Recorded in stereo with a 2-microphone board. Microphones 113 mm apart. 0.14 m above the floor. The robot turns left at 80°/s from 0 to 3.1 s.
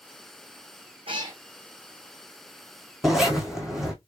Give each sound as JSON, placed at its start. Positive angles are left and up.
{"t": 1.1, "sound": "a cat meowing", "side_deg": -50, "distance_m": 1.5}
{"t": 3.0, "sound": "a zipper", "side_deg": 0, "distance_m": 1.5}